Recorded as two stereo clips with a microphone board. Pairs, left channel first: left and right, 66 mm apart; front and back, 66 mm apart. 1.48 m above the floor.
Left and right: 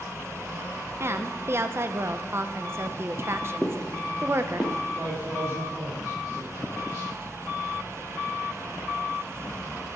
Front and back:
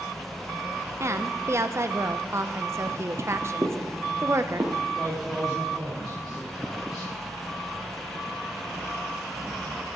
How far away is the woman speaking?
About 0.7 m.